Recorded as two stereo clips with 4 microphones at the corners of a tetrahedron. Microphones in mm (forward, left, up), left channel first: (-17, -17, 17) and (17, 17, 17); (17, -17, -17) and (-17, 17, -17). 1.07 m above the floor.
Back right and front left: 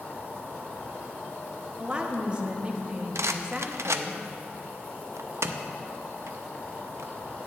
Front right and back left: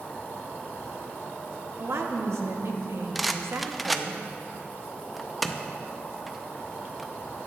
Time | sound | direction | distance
0.0 | an insect | 90° right | 3 m
1.8 | a woman speaking | 115° left | 1.1 m
3.1 | a rattle | 45° left | 0.5 m